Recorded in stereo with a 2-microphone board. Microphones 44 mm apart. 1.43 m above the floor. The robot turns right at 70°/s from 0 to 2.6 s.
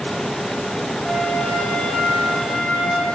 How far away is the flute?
About 3 m.